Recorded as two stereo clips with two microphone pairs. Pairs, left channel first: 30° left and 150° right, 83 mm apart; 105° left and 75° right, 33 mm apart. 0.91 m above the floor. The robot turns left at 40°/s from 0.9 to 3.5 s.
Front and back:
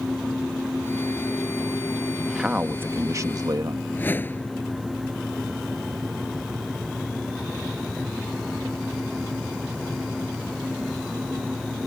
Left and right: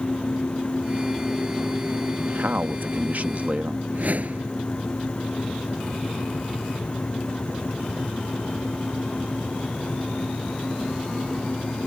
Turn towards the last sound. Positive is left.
turn(degrees=-35)